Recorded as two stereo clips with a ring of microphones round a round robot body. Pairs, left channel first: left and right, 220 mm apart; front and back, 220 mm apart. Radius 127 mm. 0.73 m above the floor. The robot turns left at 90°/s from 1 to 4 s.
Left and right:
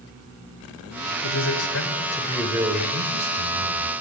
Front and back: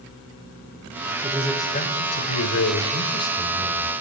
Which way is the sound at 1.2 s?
110° left.